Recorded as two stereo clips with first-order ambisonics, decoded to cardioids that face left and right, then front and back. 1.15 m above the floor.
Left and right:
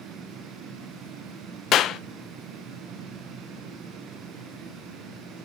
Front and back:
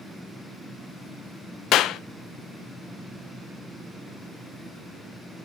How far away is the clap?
About 0.6 m.